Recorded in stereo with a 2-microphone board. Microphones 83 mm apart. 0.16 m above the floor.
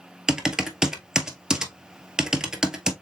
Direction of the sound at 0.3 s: 10° right (ahead or behind).